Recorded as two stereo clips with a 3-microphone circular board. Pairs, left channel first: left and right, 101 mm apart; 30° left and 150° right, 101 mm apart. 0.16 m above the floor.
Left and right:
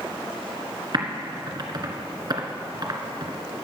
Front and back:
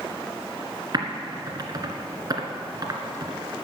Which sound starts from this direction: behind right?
Typing on a keyboard, at 0.9 s.